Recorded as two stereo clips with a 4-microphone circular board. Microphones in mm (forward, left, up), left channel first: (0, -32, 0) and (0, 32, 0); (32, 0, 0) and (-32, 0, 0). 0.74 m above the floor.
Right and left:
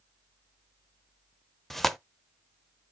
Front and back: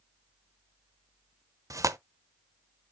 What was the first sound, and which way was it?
Tearing paper, 175° right.